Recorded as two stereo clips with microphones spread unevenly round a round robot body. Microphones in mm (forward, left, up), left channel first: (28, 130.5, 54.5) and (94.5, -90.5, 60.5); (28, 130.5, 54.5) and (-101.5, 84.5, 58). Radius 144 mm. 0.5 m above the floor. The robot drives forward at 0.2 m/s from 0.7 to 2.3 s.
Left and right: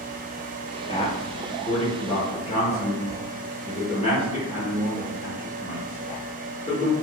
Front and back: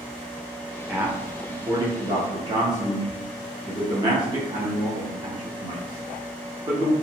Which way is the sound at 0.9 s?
125° left.